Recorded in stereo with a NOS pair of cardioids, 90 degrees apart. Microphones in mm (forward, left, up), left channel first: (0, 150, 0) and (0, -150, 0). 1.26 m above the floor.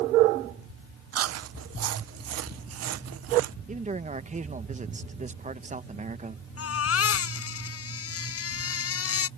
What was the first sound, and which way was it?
Chewing, 55° right.